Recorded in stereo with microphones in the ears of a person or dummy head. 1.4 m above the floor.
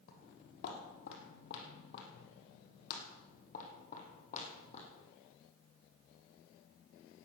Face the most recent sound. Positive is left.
turn(degrees=40)  # may be behind; listen again after turning